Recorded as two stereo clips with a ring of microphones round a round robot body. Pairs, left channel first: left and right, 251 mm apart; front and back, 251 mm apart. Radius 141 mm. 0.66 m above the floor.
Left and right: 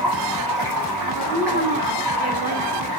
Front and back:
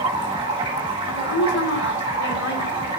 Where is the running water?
110° right, 4.5 m.